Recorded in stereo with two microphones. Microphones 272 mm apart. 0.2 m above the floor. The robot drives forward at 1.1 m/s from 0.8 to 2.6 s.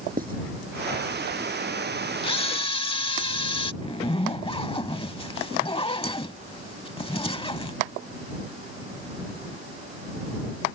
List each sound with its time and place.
0.2 s writing: 35° right (ahead or behind)
2.2 s a camera shutter: 20° left (ahead or behind)
3.8 s a zipper: 20° left (ahead or behind)